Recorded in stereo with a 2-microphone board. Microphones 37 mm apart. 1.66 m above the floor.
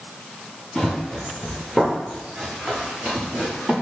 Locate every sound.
0.8 s running footsteps: centre (ahead or behind), 1.9 m; by 3.7 s 50° right (ahead or behind), 2.5 m